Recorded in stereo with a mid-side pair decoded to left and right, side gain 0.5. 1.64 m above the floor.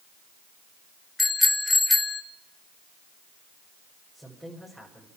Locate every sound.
1.2 s a bicycle bell: 15° left, 2.5 m
4.1 s a woman speaking: 5° right, 8 m